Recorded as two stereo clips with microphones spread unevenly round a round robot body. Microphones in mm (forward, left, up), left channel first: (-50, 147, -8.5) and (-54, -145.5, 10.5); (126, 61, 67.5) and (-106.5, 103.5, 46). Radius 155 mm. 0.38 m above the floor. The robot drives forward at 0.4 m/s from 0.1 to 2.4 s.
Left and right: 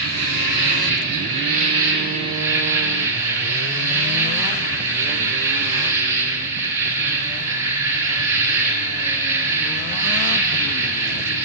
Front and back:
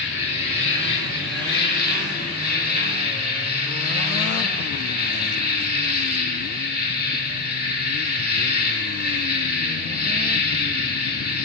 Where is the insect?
105° right, 3 m; by 11.5 s 120° right, 3.5 m.